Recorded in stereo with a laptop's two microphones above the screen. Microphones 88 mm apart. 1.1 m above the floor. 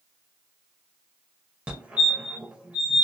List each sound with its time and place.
1.7 s a fire alarm: 15° right (ahead or behind), 1.0 m